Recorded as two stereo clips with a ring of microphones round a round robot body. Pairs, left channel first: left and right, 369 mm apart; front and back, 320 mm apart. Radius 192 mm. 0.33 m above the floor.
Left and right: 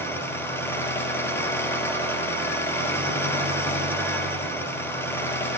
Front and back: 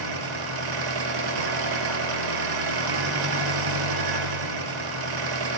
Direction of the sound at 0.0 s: 175° left.